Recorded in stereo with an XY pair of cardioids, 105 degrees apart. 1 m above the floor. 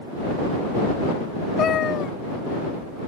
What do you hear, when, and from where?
1.6 s a cat meowing: 60° left